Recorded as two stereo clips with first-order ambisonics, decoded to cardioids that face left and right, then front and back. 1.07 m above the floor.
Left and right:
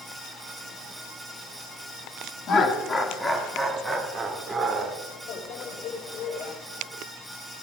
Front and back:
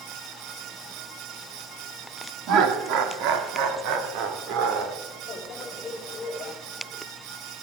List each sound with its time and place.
2.5 s laughter: 145° left, 1.6 m; by 4.9 s 160° right, 2.5 m
5.3 s a microwave: 55° left, 4 m